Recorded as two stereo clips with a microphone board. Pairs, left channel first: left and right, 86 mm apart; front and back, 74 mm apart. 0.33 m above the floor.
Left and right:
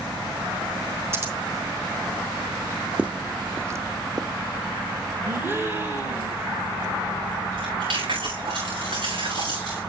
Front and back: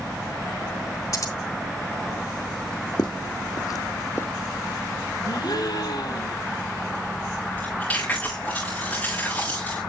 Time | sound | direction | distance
1.1 | scissors | 35° right | 2.5 m
3.0 | footsteps | 15° right | 1.0 m
5.2 | a gasp | 25° right | 2.5 m
7.5 | chewing | 75° right | 6.5 m